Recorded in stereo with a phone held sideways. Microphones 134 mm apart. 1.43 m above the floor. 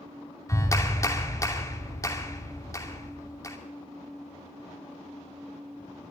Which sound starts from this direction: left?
A clap, at 0.5 s.